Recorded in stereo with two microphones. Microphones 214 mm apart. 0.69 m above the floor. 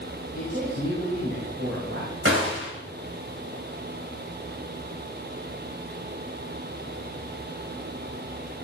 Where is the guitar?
I don't hear a guitar.